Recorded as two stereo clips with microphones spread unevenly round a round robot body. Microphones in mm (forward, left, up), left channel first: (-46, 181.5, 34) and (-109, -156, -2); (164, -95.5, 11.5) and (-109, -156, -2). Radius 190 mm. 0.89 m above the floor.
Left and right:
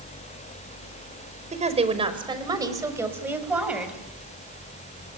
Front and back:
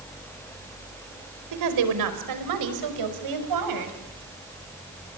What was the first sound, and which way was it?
A woman speaking, 170° right.